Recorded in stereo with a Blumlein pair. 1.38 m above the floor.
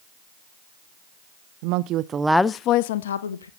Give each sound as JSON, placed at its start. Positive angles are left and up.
{"t": 1.6, "sound": "a woman speaking", "azimuth_deg": -45, "distance_m": 0.9}